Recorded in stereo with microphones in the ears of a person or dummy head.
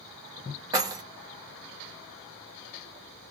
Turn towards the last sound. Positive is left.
turn(degrees=-20)  # may be behind; listen again after turning